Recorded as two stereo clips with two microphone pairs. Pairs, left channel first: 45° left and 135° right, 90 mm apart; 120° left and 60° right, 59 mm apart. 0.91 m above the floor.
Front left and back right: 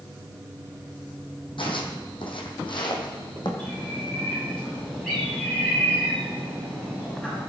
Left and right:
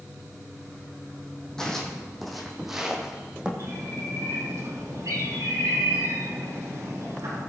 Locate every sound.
1.6 s footsteps: 45° left, 2.5 m; by 3.5 s 15° left, 2.5 m
3.6 s a bird: 35° right, 6 m